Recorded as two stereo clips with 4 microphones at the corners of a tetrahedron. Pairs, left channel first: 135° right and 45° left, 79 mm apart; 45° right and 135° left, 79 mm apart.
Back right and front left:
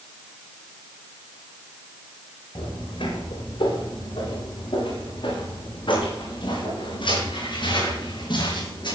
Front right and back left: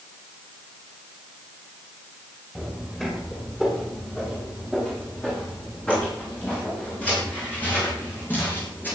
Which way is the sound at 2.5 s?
135° right.